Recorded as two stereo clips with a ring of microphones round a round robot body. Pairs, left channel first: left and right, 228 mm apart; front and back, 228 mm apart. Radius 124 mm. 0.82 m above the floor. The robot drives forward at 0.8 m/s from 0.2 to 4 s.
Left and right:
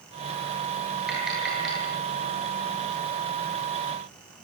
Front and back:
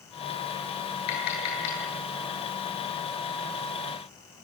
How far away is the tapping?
About 10 m.